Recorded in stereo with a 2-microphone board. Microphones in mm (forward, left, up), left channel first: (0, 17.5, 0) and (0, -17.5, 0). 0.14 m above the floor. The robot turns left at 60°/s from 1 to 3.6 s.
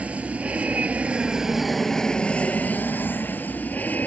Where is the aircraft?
40° right (ahead or behind); by 4.1 s 55° left (ahead or behind).